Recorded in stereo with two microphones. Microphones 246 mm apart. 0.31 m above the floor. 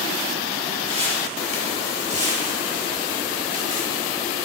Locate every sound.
0.9 s footsteps: 25° right (ahead or behind), 4.5 m; by 4.0 s 35° right (ahead or behind), 3 m